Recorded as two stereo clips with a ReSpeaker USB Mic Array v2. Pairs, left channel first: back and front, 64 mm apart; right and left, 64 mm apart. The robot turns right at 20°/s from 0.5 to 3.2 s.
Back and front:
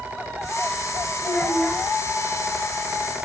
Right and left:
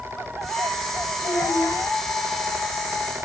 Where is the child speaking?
110° right, 3 m; by 1.8 s 95° right, 3 m.